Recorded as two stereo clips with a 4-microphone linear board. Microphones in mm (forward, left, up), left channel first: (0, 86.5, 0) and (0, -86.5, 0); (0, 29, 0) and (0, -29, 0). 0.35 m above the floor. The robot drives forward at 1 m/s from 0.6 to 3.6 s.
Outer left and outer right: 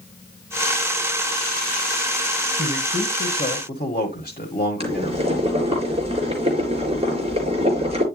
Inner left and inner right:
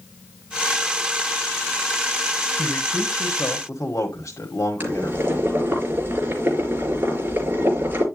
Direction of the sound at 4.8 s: 35° right (ahead or behind).